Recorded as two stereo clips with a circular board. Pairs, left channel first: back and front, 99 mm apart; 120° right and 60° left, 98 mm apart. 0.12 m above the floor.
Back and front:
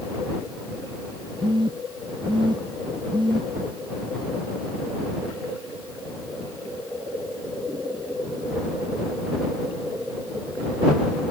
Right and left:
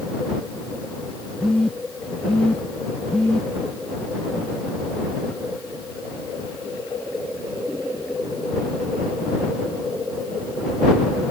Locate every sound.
1.4 s a phone buzzing: 40° right